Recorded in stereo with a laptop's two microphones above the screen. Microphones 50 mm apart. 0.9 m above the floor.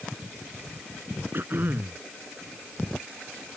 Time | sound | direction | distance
1.3 | throat clearing | 50° right (ahead or behind) | ?